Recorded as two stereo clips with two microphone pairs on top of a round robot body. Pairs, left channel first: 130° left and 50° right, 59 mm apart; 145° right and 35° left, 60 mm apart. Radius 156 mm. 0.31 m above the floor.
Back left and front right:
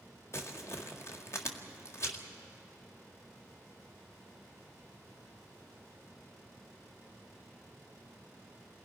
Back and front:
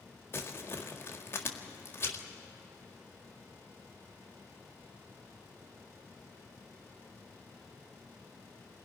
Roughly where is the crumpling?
Behind.